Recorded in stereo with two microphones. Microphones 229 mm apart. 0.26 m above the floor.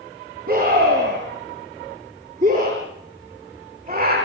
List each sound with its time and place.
0.5 s a scream: 40° right (ahead or behind), 5.5 m; by 4.2 s 35° right (ahead or behind), 7.5 m